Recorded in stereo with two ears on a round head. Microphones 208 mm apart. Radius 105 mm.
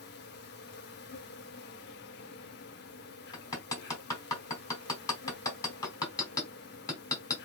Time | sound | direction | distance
0.0 | an insect | 45° left (ahead or behind) | 0.8 m
3.3 | hammering | 15° left (ahead or behind) | 1.3 m